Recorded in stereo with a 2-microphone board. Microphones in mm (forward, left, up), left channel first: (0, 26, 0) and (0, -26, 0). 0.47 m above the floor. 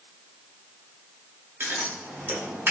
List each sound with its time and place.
1.6 s scissors: 45° right (ahead or behind), 0.8 m